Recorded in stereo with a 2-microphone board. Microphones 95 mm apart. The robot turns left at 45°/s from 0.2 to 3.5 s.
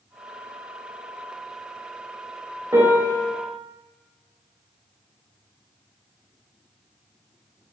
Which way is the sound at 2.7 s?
30° right (ahead or behind).